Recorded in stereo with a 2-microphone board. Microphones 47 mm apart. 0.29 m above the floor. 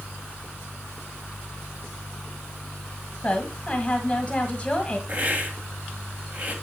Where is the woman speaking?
20° left (ahead or behind), 1.4 m.